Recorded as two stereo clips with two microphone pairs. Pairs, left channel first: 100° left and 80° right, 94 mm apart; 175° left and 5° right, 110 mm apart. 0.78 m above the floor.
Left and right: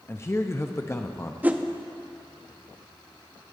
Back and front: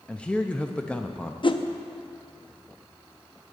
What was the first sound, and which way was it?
A man speaking, 105° left.